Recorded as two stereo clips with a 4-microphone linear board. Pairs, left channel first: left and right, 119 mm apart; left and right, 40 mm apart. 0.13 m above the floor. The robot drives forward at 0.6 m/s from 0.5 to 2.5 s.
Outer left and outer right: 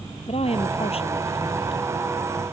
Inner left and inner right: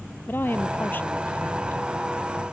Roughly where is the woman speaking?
Left.